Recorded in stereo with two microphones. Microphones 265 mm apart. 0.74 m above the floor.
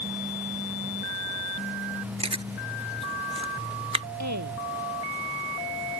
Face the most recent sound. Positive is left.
turn(degrees=-80)